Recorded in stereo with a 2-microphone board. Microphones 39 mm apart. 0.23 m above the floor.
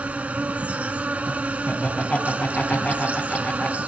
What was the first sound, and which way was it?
An insect, 40° right (ahead or behind).